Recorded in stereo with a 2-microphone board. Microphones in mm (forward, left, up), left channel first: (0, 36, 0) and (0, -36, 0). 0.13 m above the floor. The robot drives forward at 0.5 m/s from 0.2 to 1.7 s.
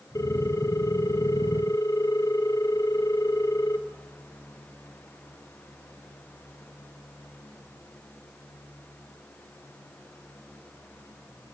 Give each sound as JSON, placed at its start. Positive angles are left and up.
{"t": 0.1, "sound": "a ringtone", "side_deg": 50, "distance_m": 2.0}